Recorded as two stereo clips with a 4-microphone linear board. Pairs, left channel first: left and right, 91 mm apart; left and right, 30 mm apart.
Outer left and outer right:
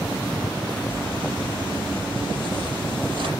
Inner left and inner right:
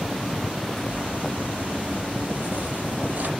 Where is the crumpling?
70° right (ahead or behind), 5 m.